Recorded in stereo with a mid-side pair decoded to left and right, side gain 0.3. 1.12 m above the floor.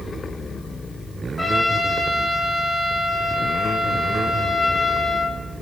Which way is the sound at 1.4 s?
30° left.